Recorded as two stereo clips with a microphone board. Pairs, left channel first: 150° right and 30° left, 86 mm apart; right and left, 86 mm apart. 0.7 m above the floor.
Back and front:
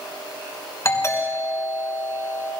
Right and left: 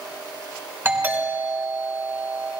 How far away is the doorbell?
About 4 m.